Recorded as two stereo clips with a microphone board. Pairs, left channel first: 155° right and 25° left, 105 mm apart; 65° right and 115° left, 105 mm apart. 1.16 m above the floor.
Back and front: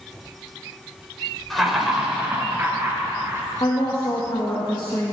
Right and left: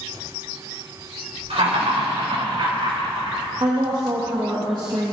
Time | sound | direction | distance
1.5 | laughter | 115° left | 4 m
3.6 | a woman speaking | 160° left | 1.6 m